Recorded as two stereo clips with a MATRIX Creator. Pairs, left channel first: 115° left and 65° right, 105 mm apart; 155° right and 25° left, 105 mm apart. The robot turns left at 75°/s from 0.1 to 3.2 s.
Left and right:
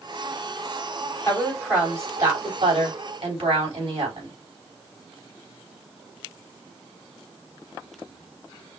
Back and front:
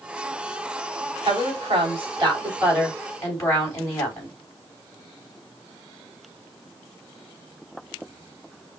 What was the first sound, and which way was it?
A woman speaking, 50° left.